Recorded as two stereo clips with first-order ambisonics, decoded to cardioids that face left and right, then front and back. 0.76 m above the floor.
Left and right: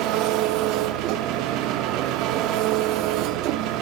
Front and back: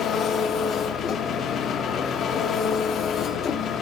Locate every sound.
0.0 s an engine running: 60° right, 0.8 m